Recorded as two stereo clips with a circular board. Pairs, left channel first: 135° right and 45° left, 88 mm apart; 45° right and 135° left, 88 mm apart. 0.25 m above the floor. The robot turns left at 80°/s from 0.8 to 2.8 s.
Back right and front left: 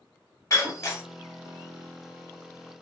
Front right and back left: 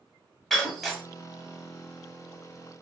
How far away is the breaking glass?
About 0.9 m.